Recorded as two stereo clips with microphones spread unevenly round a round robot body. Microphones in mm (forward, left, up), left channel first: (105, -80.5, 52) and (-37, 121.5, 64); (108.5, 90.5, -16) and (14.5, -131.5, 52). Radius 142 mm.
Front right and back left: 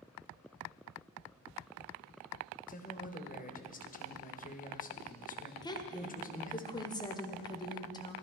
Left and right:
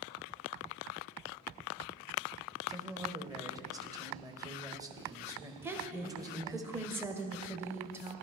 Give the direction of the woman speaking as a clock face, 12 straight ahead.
12 o'clock.